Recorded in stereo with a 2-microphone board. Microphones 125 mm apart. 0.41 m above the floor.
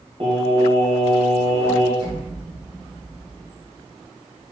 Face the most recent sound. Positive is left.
turn(degrees=-40)  # may be behind; listen again after turning